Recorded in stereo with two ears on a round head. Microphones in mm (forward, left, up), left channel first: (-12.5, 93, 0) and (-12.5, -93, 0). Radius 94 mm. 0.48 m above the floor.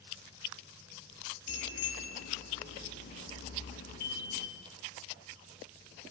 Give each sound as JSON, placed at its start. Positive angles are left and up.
{"t": 1.5, "sound": "a bicycle bell", "side_deg": 55, "distance_m": 7.0}